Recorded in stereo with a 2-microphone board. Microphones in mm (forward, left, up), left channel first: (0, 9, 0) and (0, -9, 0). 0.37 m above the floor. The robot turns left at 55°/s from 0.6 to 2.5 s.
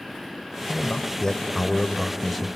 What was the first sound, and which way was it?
A man speaking, 90° left.